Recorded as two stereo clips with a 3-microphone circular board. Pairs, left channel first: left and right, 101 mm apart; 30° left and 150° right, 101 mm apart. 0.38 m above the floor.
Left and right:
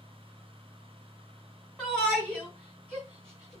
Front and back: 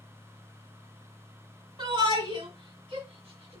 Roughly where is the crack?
I don't hear a crack.